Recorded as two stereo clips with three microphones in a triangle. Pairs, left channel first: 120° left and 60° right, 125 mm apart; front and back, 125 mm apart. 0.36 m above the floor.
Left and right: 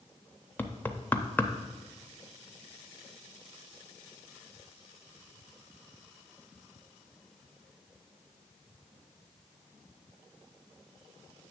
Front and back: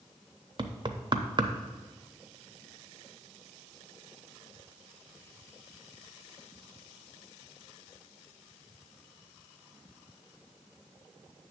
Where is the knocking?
170° right, 0.6 m.